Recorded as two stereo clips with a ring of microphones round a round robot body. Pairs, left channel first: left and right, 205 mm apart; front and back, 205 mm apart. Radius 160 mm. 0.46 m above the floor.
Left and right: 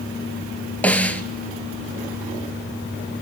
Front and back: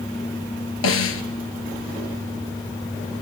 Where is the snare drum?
5° left, 2.5 m.